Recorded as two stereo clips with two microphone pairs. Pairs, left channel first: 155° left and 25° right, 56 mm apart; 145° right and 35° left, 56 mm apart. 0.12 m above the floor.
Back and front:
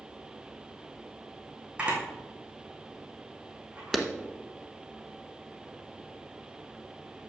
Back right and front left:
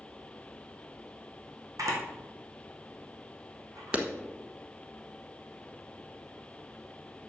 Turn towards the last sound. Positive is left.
turn(degrees=70)